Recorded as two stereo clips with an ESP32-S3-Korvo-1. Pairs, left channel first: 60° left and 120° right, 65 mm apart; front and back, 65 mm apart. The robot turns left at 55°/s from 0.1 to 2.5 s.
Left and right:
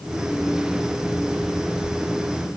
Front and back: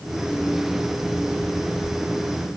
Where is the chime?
I don't hear a chime.